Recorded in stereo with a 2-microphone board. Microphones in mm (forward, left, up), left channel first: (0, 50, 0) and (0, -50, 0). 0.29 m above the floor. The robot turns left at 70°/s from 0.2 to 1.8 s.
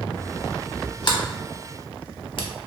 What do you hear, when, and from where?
1.0 s a sliding door: 45° left (ahead or behind), 0.5 m; by 2.5 s 55° left (ahead or behind), 0.5 m